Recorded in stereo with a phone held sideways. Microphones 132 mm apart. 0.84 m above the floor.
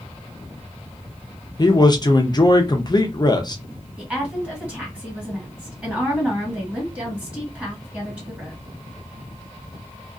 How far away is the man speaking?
About 0.6 m.